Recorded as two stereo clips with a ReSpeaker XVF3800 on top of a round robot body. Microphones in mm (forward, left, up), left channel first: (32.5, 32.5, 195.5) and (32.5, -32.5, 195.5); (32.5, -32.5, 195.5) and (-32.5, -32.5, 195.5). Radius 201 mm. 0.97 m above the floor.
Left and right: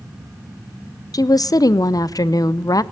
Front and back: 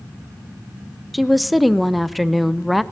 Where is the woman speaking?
90° left, 0.7 m.